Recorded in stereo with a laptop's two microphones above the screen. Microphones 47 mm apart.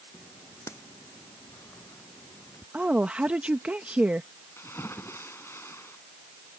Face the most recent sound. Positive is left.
turn(degrees=60)  # may be behind; listen again after turning